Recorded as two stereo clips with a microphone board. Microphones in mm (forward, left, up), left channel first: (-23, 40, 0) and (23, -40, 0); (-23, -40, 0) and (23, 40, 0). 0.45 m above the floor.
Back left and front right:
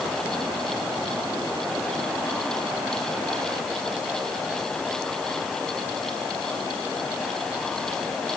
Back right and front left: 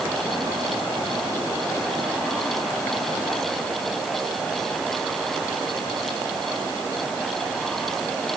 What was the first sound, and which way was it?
Only background noise.